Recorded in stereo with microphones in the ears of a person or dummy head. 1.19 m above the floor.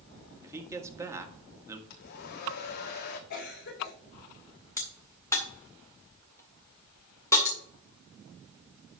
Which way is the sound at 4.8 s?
20° left (ahead or behind).